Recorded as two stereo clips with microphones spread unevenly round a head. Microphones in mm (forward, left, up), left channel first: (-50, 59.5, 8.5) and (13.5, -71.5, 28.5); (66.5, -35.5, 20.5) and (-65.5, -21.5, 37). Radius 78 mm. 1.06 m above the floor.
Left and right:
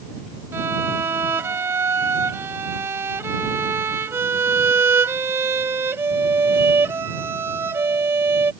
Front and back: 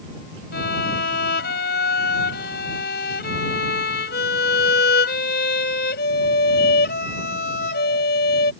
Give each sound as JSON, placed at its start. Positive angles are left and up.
{"t": 0.5, "sound": "a violin", "azimuth_deg": 10}